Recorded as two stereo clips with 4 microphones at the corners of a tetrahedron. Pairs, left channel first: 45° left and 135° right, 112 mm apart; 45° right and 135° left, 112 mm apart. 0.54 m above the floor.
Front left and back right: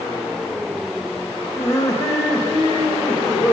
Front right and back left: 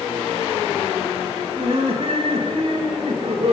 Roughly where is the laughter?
Left.